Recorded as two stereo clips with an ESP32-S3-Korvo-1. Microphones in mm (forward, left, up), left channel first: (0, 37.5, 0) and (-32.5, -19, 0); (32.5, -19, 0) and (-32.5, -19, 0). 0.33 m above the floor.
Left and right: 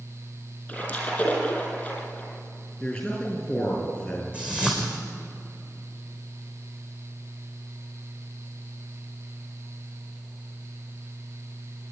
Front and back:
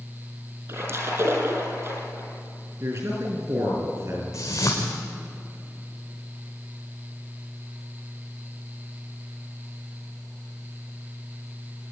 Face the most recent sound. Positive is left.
turn(degrees=-45)